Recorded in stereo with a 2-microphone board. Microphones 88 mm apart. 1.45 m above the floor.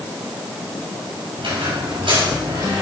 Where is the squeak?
80° right, 6 m.